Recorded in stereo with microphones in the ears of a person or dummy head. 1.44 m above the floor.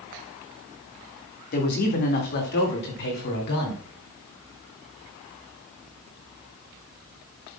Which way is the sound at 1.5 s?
45° left (ahead or behind).